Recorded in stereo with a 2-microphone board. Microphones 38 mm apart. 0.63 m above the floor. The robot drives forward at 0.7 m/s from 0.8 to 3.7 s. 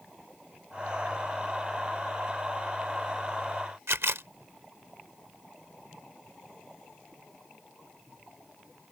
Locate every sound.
3.9 s a camera shutter: 85° right